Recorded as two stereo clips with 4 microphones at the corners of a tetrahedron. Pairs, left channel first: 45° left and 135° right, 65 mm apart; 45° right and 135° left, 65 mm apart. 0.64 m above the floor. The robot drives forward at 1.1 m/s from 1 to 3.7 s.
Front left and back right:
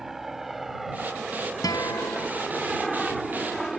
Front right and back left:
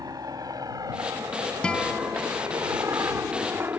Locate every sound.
0.0 s a helicopter: 140° left; by 3.8 s 125° left
1.6 s a guitar: 30° left; by 2.3 s 40° left